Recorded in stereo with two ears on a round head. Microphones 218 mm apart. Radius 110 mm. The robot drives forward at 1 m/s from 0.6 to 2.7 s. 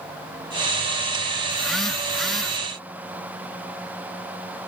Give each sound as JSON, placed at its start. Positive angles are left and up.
{"t": 1.5, "sound": "a phone buzzing", "side_deg": 0}